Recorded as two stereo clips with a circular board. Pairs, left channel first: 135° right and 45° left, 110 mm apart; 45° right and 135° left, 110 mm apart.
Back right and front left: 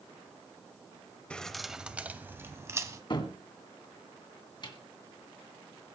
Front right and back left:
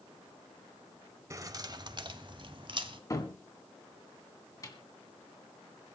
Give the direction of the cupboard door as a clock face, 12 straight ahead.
3 o'clock.